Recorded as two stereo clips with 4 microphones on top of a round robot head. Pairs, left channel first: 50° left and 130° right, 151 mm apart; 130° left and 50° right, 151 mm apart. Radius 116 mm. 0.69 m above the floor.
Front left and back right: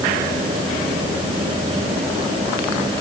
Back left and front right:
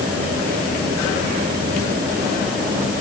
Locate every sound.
Only background noise.